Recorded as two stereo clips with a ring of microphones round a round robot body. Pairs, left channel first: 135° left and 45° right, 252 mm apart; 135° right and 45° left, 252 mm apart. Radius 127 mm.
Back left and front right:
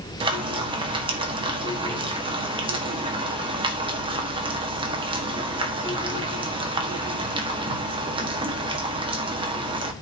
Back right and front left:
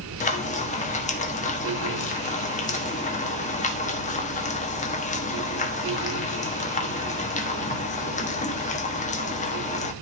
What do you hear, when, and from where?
0.2 s frying: 100° right, 1.4 m